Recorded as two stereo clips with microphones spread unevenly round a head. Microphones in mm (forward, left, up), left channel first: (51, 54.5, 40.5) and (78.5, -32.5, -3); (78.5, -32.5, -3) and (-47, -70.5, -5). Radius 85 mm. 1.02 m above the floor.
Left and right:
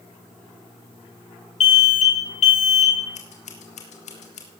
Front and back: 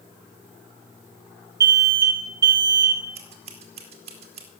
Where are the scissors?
145° left, 2 m.